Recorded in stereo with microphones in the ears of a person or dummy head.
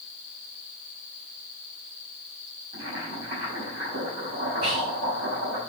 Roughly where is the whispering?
Right.